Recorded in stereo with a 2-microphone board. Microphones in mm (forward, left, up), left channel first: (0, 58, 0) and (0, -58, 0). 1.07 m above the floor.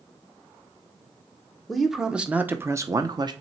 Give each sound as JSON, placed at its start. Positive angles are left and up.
{"t": 1.7, "sound": "a man speaking", "side_deg": 0, "distance_m": 0.9}